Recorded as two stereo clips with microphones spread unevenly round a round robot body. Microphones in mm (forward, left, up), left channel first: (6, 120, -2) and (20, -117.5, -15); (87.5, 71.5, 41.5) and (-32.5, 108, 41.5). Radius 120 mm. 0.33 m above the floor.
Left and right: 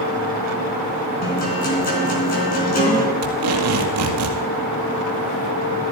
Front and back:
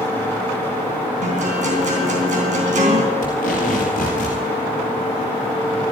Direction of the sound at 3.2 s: 65° right.